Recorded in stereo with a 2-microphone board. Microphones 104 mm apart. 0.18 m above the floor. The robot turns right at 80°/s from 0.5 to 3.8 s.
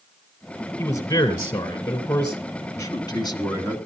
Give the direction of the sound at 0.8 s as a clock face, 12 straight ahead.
11 o'clock.